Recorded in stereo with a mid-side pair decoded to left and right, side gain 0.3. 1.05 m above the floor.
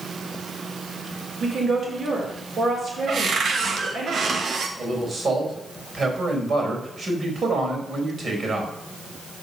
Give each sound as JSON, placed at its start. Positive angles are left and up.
{"t": 1.4, "sound": "a woman speaking", "azimuth_deg": -65, "distance_m": 4.0}
{"t": 3.1, "sound": "a cupboard door", "azimuth_deg": -70, "distance_m": 1.1}
{"t": 4.8, "sound": "a man speaking", "azimuth_deg": -55, "distance_m": 4.0}